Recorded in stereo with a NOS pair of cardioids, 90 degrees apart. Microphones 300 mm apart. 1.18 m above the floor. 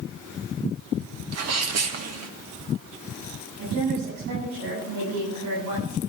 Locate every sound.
1.3 s a sneeze: 60° right, 2.0 m
3.6 s a woman speaking: 65° right, 9.5 m